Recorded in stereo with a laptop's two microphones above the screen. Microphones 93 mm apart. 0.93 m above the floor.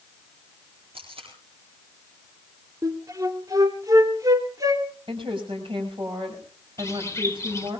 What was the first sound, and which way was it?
Tape being pulled, 70° right (ahead or behind).